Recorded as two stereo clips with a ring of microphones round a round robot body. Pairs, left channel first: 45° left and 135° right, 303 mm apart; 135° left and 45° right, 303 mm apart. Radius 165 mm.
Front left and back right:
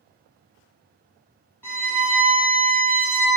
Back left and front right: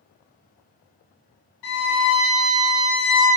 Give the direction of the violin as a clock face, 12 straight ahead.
8 o'clock.